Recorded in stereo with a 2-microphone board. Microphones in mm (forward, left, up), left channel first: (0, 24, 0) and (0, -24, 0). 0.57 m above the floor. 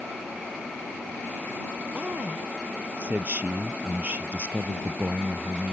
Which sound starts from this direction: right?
A man speaking, at 1.9 s.